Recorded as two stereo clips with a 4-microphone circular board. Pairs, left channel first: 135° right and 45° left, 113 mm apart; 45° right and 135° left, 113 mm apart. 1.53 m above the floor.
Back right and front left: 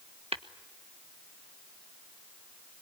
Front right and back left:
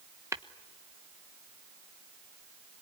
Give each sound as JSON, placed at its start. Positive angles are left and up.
{"t": 0.3, "sound": "tapping", "azimuth_deg": 70, "distance_m": 1.1}